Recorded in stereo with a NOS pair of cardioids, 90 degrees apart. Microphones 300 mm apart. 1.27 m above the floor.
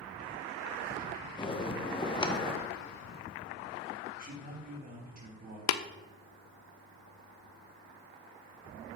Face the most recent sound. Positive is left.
turn(degrees=70)